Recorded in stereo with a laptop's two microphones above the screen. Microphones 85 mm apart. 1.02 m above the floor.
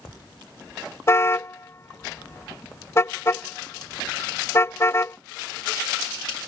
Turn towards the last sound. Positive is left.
turn(degrees=30)  # may be behind; listen again after turning